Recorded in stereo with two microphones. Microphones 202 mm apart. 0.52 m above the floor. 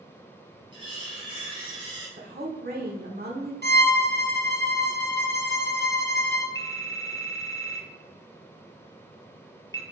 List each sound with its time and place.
0.7 s cutlery clinking: 25° right (ahead or behind), 2.5 m
2.2 s a woman speaking: 50° right (ahead or behind), 1.3 m
3.6 s a violin: 55° right (ahead or behind), 0.9 m
6.5 s a phone ringing: 20° left (ahead or behind), 0.7 m